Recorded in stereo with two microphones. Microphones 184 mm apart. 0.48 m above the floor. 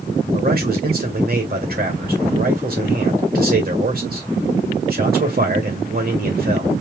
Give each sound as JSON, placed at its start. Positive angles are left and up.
{"t": 0.3, "sound": "a man speaking", "side_deg": -55, "distance_m": 1.9}